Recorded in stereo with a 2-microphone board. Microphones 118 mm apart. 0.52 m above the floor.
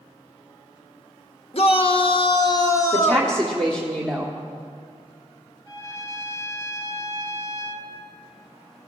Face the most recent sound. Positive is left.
turn(degrees=-30)  # may be behind; listen again after turning